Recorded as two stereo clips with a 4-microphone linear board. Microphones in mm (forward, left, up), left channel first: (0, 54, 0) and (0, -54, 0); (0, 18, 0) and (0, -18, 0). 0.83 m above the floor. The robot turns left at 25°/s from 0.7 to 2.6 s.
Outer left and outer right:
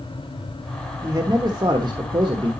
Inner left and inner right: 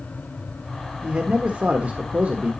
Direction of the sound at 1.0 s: 40° right.